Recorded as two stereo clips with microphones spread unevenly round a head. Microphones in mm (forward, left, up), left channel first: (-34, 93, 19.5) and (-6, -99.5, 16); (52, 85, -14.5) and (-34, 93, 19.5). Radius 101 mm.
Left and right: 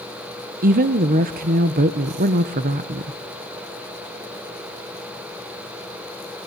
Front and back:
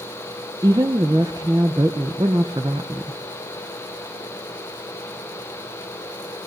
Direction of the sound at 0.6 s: 130° right.